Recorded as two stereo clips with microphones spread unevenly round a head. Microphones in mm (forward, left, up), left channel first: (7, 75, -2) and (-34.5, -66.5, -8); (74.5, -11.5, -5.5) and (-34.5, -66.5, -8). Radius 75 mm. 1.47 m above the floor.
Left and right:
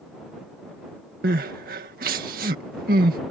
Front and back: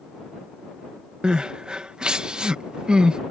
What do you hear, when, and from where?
1.2 s crying: 70° right